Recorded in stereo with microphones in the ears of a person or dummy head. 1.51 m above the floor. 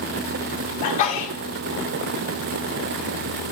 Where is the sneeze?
40° left (ahead or behind), 1.0 m.